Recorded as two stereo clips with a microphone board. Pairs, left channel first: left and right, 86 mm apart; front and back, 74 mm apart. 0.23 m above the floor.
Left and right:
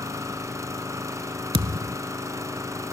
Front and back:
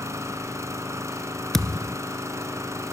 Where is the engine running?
140° right, 1.9 m.